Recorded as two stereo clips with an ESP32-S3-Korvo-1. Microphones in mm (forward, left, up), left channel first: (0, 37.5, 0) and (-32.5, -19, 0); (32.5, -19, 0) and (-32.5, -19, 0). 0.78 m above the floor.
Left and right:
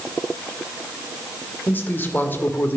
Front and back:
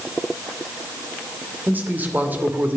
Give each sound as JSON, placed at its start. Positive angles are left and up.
{"t": 1.7, "sound": "a man speaking", "azimuth_deg": 120, "distance_m": 1.9}